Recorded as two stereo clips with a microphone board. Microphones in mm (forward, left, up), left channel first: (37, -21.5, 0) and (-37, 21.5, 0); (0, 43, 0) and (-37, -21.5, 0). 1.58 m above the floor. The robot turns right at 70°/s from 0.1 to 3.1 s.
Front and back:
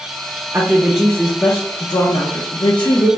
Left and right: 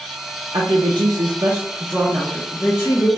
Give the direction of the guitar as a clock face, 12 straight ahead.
No guitar in this recording.